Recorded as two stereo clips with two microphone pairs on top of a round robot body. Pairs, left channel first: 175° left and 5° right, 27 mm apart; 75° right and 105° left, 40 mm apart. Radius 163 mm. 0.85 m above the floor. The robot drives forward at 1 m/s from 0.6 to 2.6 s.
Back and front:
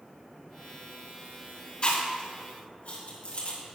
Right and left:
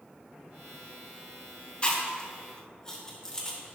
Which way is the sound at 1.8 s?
135° right.